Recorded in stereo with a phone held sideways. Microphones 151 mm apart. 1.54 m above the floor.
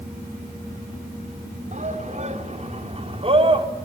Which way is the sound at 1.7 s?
55° right (ahead or behind).